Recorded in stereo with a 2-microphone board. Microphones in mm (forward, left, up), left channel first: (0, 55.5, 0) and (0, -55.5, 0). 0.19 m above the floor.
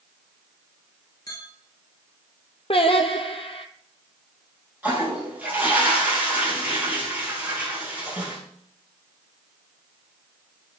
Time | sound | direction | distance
1.3 | a clink | 35° left (ahead or behind) | 2 m
2.7 | singing | 55° left (ahead or behind) | 1.1 m
4.8 | a toilet flushing | 15° right (ahead or behind) | 3 m